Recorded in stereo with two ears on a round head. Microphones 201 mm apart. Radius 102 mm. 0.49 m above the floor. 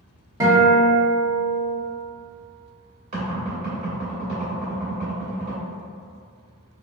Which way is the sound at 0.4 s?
15° right (ahead or behind).